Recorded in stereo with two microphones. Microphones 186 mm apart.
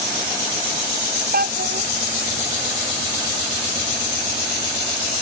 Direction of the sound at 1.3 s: 55° right (ahead or behind).